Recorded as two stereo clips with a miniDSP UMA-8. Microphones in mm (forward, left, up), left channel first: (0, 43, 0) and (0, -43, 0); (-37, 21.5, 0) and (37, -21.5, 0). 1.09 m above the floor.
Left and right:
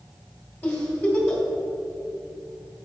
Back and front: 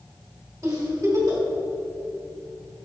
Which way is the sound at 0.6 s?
25° left.